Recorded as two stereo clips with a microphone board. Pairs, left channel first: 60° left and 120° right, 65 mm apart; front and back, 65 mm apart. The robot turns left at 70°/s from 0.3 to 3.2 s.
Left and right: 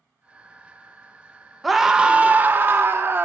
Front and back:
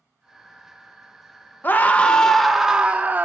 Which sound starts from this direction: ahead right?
A scream, at 1.6 s.